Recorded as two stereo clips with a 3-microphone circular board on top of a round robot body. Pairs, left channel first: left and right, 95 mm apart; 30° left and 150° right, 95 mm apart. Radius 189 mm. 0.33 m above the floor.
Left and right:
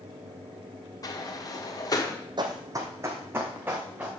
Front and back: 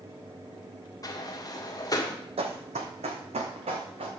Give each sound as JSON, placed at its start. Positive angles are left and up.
{"t": 1.0, "sound": "a sliding door", "azimuth_deg": 60, "distance_m": 2.0}
{"t": 2.4, "sound": "running footsteps", "azimuth_deg": -135, "distance_m": 1.1}